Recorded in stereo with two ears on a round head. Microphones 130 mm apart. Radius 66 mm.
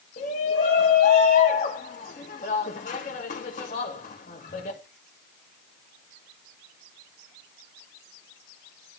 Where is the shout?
55° left (ahead or behind), 2.5 m.